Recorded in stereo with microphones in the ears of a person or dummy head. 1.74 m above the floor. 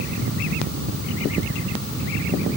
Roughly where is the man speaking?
No man speaking in this recording.